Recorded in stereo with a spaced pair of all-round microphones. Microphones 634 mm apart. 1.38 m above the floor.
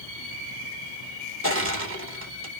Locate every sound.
1.4 s crushing: 20° right (ahead or behind), 0.9 m